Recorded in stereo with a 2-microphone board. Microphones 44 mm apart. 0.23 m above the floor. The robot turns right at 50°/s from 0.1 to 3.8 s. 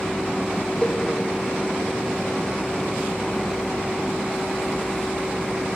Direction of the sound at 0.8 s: 25° left (ahead or behind).